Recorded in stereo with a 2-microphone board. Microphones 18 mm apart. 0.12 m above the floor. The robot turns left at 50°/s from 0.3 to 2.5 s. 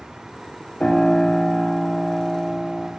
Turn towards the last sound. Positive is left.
turn(degrees=50)